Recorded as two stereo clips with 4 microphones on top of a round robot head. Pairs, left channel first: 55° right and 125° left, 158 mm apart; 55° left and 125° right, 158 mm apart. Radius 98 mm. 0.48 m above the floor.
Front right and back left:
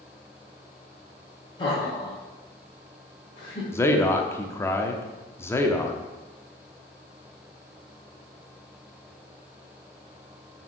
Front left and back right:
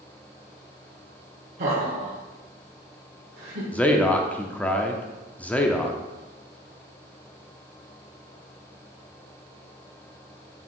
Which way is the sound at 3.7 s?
10° right.